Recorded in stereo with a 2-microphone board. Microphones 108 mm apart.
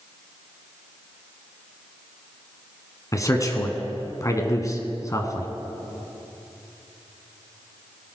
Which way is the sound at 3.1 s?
30° left (ahead or behind).